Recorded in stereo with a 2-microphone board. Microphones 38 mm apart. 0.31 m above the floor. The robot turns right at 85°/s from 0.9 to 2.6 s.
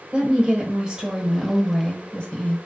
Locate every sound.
0.1 s a woman speaking: 25° right (ahead or behind), 1.0 m; by 2.6 s 25° left (ahead or behind), 1.0 m